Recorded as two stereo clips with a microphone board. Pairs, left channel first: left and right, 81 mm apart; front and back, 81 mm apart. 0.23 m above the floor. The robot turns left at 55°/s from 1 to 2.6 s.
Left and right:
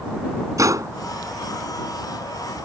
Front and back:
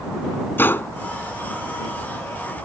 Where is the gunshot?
55° right.